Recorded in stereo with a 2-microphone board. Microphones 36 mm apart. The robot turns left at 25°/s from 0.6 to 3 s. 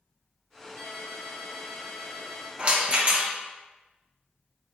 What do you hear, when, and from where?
0.8 s a ringtone: 85° left, 0.9 m; by 2.5 s 40° left, 0.9 m
2.6 s a rattle: 30° right (ahead or behind), 0.5 m